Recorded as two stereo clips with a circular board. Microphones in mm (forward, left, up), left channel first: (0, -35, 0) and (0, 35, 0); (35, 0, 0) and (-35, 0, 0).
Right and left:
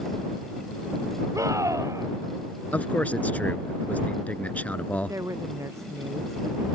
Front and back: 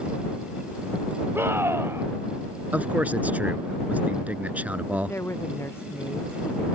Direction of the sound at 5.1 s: 50° left.